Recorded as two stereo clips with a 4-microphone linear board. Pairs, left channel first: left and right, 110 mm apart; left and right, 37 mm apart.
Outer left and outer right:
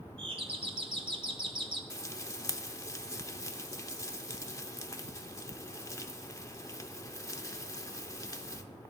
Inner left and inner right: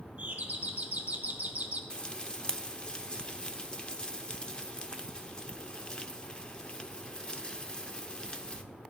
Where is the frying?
30° left (ahead or behind), 0.6 m.